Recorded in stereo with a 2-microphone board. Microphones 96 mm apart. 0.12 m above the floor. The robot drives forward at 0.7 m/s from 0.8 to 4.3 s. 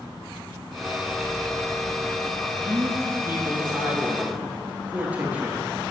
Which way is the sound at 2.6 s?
25° right (ahead or behind).